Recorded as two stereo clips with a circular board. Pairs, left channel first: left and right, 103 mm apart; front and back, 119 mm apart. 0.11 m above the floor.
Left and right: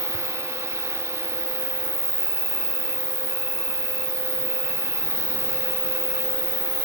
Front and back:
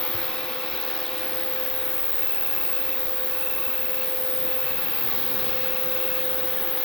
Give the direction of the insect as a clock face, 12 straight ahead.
3 o'clock.